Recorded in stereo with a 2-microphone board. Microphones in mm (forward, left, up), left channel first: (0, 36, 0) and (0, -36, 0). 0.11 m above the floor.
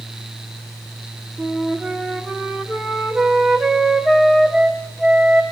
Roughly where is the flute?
Centre.